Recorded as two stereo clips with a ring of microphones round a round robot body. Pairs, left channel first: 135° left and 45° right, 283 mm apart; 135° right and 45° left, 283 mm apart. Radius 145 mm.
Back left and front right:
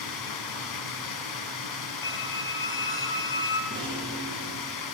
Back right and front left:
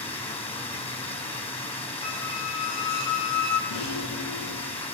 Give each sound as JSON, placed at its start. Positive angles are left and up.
{"t": 0.0, "sound": "running water", "azimuth_deg": 155, "distance_m": 6.0}
{"t": 2.0, "sound": "a squeak", "azimuth_deg": -145, "distance_m": 3.5}
{"t": 3.7, "sound": "a rattle", "azimuth_deg": -120, "distance_m": 7.0}